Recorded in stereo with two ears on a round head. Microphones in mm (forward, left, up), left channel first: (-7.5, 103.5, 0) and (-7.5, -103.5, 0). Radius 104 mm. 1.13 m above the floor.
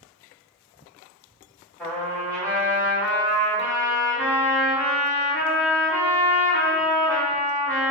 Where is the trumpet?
5° left (ahead or behind), 1.8 m.